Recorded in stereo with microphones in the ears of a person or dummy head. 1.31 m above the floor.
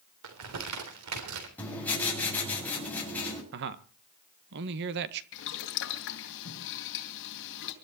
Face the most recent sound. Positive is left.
turn(degrees=60)  # may be behind; listen again after turning